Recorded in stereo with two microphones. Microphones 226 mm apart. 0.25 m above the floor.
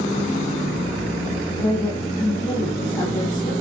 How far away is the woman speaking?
About 6 m.